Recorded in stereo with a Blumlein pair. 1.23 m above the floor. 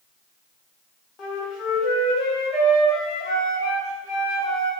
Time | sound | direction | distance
1.2 | a flute | 25° left | 0.7 m